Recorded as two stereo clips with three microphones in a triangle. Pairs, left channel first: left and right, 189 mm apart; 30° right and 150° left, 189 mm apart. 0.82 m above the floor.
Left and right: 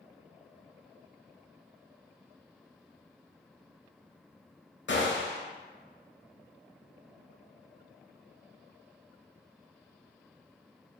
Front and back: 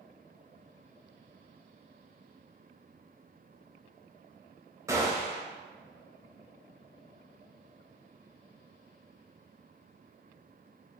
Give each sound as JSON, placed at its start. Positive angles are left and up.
{"t": 4.9, "sound": "a gunshot", "azimuth_deg": 75, "distance_m": 0.6}